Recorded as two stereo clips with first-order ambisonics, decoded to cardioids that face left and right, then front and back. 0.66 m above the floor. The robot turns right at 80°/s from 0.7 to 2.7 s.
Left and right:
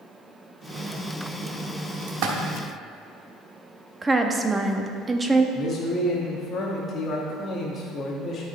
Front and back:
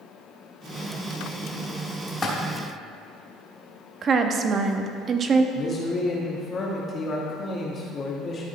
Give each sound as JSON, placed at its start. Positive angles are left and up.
{"t": 2.1, "sound": "a splash", "azimuth_deg": -90, "distance_m": 1.1}
{"t": 4.0, "sound": "a woman speaking", "azimuth_deg": -155, "distance_m": 0.6}
{"t": 5.5, "sound": "a man speaking", "azimuth_deg": 40, "distance_m": 1.1}